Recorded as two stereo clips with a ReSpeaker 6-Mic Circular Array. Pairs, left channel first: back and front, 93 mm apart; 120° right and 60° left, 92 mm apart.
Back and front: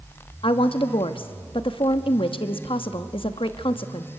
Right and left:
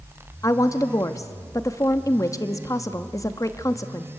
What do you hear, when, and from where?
0.4 s a woman speaking: 175° right, 1.0 m